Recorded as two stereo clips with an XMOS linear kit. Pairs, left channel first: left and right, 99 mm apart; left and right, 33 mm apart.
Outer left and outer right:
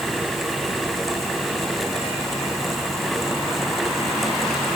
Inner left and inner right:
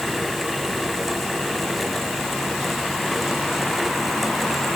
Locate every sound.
Only background noise.